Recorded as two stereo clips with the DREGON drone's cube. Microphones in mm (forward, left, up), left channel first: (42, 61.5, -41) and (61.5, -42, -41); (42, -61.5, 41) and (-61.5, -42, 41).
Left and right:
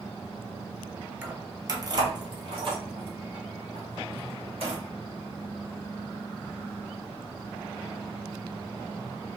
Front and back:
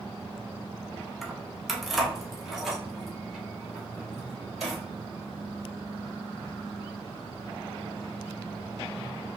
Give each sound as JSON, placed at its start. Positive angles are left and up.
{"t": 1.2, "sound": "keys jangling", "azimuth_deg": -100, "distance_m": 0.8}